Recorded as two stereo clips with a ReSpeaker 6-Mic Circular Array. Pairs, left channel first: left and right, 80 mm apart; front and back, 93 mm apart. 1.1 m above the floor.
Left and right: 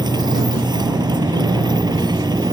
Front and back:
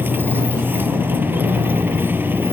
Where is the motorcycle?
110° right.